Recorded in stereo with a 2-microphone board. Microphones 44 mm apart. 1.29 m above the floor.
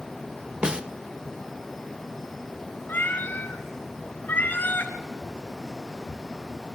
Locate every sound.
0.6 s a snare drum: 20° right (ahead or behind), 0.6 m
2.9 s a cat meowing: 50° left (ahead or behind), 1.8 m